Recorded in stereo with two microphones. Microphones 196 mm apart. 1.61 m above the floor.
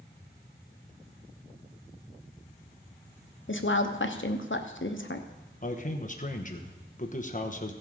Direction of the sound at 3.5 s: 75° left (ahead or behind).